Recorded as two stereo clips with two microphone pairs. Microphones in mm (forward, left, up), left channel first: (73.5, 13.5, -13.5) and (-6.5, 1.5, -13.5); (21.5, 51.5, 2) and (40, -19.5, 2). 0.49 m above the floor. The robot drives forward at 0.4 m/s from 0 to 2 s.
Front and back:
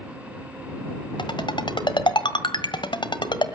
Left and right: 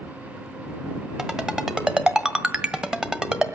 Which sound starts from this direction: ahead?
A ringtone, at 1.2 s.